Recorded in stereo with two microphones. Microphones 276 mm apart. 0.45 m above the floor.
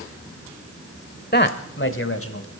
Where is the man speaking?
35° left (ahead or behind), 1.3 m; by 2.5 s 55° left (ahead or behind), 2.5 m.